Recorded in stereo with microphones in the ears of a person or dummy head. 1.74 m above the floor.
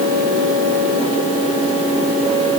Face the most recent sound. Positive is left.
No sound to turn to.